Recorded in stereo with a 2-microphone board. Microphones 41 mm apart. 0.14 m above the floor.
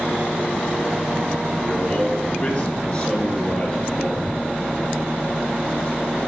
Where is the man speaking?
35° left (ahead or behind), 1.3 m; by 4.4 s 25° left (ahead or behind), 2.5 m.